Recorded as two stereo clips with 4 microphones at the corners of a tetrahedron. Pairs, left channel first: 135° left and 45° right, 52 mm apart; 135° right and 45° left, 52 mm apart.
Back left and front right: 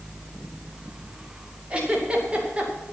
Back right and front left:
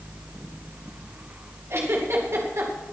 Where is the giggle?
25° left, 2.5 m.